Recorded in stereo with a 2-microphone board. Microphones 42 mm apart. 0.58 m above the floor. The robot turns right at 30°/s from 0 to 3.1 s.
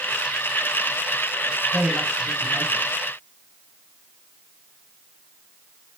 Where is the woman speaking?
90° right, 3 m; by 2.9 s 55° right, 3 m.